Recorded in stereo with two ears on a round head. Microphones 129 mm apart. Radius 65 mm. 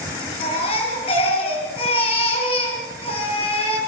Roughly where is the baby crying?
Left.